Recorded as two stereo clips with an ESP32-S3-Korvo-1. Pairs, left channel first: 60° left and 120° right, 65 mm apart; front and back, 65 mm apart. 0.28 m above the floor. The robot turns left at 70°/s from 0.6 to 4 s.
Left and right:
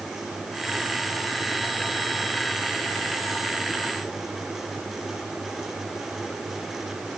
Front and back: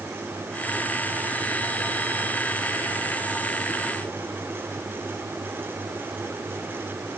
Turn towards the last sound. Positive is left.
No sound to turn to.